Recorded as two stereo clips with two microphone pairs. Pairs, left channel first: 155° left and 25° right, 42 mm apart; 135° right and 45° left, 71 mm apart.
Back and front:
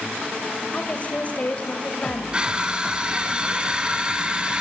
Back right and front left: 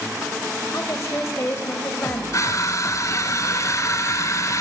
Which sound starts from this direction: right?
Crushing, at 2.3 s.